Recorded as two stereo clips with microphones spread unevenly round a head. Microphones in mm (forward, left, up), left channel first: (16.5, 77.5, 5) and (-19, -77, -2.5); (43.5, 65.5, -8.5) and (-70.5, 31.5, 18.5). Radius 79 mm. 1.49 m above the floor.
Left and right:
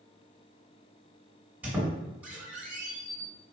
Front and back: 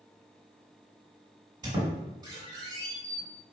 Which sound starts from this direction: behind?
A squeak, at 1.6 s.